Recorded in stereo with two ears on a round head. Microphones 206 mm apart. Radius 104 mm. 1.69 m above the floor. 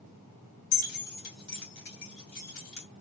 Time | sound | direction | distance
0.7 | keys jangling | 35° left (ahead or behind) | 1.7 m